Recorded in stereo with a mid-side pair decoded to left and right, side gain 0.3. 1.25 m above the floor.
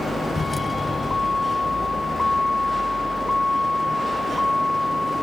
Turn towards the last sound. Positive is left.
turn(degrees=15)